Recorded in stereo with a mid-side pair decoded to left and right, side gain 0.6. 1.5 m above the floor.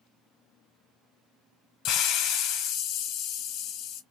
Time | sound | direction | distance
1.9 | a hiss | 65° left | 0.9 m